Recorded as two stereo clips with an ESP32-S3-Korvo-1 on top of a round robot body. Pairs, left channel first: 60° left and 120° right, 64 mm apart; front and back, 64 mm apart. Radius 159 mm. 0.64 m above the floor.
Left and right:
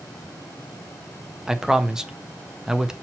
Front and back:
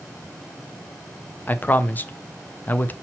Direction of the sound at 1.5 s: 45° right.